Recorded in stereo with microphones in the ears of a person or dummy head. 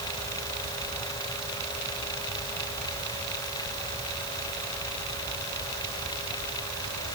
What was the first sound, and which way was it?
Only background noise.